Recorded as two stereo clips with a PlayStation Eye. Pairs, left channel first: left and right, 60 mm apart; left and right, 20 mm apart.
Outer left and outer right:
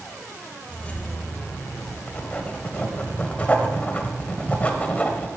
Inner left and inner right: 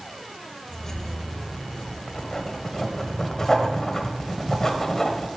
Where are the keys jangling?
15° left (ahead or behind), 0.8 m; by 2.0 s 50° left (ahead or behind), 1.8 m.